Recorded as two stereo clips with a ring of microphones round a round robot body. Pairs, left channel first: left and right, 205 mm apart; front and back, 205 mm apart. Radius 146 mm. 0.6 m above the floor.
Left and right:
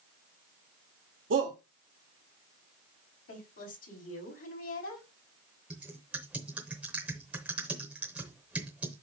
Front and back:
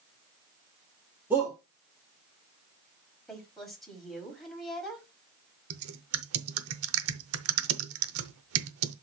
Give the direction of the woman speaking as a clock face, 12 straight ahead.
9 o'clock.